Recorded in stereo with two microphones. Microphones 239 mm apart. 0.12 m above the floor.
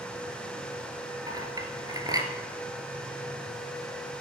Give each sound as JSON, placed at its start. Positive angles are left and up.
{"t": 1.3, "sound": "a clink", "side_deg": -15, "distance_m": 1.8}